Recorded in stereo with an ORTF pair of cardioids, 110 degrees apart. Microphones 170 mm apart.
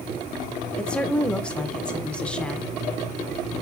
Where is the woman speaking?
5° left, 0.8 m.